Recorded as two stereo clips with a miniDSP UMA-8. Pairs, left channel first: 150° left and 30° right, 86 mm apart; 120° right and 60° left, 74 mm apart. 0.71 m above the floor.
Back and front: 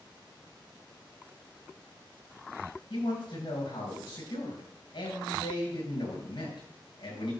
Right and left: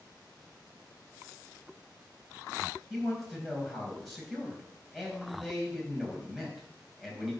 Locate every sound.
2.9 s a man speaking: 150° left, 4.5 m